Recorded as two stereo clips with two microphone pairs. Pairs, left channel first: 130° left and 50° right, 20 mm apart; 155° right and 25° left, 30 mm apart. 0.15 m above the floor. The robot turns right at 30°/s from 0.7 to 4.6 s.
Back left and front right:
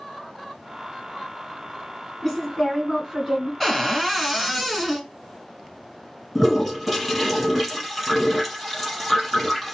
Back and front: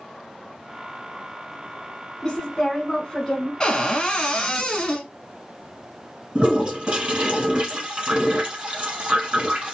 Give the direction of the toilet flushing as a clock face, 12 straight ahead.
11 o'clock.